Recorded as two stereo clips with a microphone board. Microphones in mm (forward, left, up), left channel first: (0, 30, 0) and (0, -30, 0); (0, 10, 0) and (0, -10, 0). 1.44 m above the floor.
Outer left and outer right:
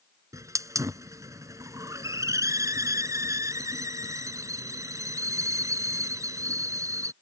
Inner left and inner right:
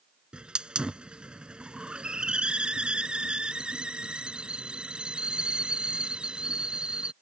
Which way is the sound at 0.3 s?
60° right (ahead or behind).